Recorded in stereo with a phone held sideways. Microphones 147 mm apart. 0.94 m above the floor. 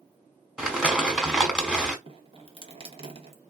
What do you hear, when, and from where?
0.6 s crumpling: 5° right (ahead or behind), 1.4 m
2.1 s dripping: 40° right (ahead or behind), 1.1 m